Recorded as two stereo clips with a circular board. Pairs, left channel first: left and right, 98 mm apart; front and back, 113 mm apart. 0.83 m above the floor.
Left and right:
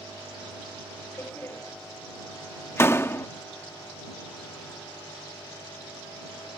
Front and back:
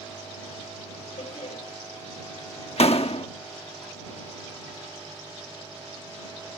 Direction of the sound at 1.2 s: 25° left.